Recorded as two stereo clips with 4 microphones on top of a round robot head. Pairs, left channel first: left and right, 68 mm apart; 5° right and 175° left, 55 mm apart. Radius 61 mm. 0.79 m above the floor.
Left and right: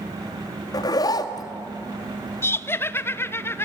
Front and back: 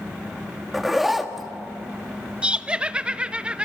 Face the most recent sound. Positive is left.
turn(degrees=115)